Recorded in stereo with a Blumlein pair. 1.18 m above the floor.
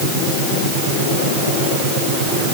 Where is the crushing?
I don't hear crushing.